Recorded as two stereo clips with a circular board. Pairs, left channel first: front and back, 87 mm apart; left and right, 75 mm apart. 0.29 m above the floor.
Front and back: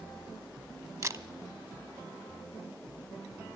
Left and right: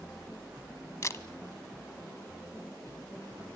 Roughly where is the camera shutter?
Behind left.